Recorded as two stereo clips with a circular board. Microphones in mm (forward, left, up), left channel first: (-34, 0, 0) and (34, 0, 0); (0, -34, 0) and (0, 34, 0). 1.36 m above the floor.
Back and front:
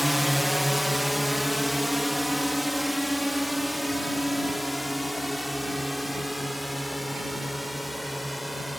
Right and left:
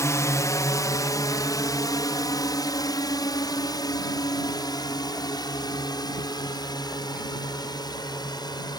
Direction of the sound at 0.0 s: 90° right.